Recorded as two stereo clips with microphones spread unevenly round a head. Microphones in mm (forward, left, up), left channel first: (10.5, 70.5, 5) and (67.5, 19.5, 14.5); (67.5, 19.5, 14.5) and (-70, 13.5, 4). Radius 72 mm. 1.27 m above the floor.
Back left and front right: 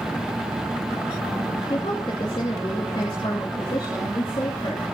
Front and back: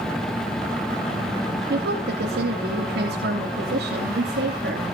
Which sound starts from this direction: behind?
A woman speaking, at 1.7 s.